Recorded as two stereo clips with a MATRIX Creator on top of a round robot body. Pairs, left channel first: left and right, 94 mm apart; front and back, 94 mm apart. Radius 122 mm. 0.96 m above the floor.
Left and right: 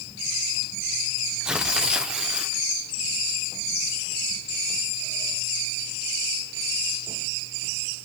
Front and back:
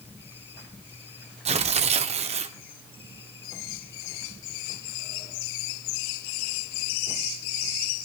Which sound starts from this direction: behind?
Tearing paper, at 1.4 s.